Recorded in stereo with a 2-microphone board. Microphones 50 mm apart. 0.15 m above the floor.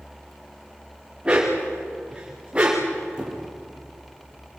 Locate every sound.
1.2 s a dog barking: 20° right (ahead or behind), 5 m
3.2 s a squeak: 15° right (ahead or behind), 5 m